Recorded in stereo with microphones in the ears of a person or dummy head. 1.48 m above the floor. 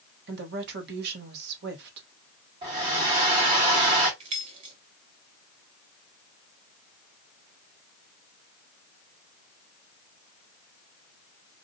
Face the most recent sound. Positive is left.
turn(degrees=-30)  # may be behind; listen again after turning